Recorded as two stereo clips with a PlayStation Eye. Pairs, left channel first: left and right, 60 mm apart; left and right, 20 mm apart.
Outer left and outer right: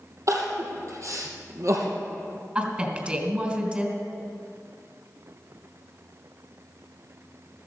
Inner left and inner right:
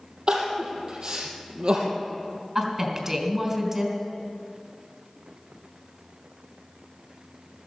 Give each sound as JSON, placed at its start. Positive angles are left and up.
{"t": 0.3, "sound": "crying", "side_deg": -55, "distance_m": 2.5}
{"t": 2.5, "sound": "a woman speaking", "side_deg": -20, "distance_m": 3.0}